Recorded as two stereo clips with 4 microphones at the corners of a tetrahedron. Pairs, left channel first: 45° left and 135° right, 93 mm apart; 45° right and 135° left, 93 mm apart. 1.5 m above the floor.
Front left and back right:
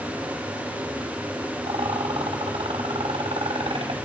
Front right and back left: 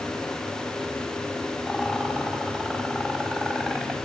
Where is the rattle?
145° right, 5 m.